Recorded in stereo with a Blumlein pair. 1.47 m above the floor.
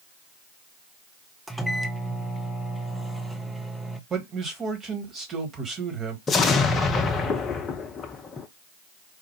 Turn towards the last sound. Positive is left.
turn(degrees=20)